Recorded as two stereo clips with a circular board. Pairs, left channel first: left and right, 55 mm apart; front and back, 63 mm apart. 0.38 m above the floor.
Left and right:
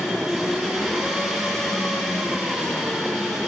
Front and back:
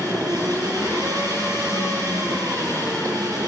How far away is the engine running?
About 9 m.